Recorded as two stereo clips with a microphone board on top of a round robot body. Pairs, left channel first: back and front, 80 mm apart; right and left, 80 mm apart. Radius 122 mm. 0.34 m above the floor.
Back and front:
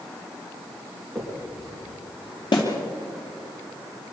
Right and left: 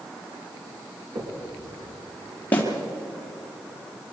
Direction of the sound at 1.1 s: 90° left.